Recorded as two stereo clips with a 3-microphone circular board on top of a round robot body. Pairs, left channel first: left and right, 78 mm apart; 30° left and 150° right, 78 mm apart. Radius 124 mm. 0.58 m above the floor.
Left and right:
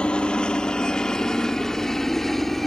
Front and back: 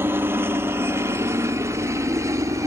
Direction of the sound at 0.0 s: 165° left.